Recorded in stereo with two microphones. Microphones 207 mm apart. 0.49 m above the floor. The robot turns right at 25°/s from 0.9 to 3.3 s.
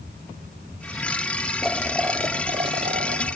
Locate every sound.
1.6 s boiling: straight behind; by 3.4 s 140° right